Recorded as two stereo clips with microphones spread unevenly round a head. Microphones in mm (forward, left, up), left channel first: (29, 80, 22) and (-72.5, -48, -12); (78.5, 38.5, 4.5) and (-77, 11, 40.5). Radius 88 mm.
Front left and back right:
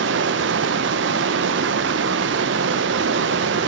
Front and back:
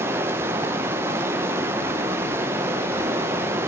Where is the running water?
95° right, 0.7 m.